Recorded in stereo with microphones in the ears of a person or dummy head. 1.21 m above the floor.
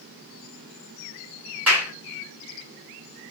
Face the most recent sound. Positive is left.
turn(degrees=-5)  # may be behind; listen again after turning